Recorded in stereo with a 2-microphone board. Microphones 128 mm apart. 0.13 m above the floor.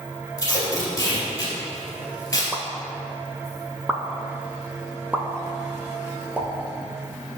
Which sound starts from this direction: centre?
A pop, at 2.5 s.